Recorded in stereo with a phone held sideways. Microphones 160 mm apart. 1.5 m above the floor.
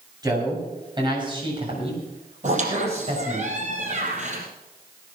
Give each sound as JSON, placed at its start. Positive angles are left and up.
{"t": 0.2, "sound": "a man speaking", "side_deg": -25, "distance_m": 7.5}
{"t": 2.4, "sound": "a squeak", "side_deg": -50, "distance_m": 4.0}